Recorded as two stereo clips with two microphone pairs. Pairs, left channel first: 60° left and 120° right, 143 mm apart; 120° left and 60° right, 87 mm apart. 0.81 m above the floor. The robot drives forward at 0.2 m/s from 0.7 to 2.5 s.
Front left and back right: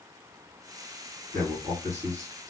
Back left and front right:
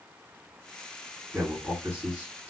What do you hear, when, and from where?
1.3 s a man speaking: 130° right, 1.7 m; by 2.5 s 140° right, 1.8 m